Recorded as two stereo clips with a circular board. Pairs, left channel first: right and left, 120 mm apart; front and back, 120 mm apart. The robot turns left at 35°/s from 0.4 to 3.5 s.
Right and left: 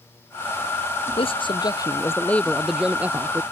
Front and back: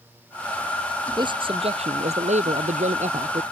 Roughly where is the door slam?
No door slam in this recording.